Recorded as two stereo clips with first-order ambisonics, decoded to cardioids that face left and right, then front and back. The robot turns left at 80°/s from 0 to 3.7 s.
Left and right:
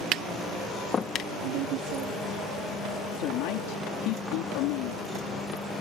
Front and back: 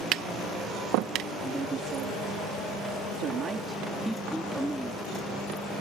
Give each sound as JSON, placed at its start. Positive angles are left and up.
{"t": 0.1, "sound": "tapping", "azimuth_deg": -135}
{"t": 1.4, "sound": "a woman speaking", "azimuth_deg": -85}